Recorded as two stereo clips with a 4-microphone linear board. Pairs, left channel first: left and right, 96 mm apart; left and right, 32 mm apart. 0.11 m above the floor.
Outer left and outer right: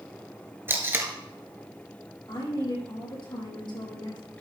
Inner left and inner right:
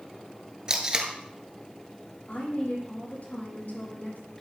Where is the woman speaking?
60° left (ahead or behind), 4.5 m.